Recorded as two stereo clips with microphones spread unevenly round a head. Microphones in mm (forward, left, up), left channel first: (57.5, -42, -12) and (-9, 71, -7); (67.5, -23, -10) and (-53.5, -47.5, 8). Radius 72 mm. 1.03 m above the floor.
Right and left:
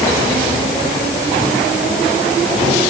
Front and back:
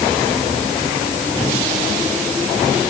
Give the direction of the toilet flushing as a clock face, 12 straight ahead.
I don't hear a toilet flushing.